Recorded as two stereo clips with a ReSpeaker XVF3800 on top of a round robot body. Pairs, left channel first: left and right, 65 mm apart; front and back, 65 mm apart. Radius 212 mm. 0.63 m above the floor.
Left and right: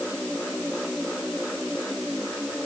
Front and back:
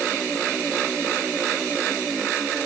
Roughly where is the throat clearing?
No throat clearing in this recording.